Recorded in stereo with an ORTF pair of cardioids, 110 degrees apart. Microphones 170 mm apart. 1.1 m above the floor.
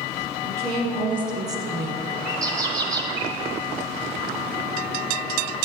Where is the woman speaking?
35° right, 2.0 m; by 2.0 s 5° right, 0.8 m.